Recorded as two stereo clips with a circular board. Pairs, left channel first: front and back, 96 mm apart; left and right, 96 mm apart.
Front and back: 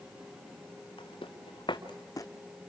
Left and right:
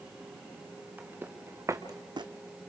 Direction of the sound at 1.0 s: 20° right.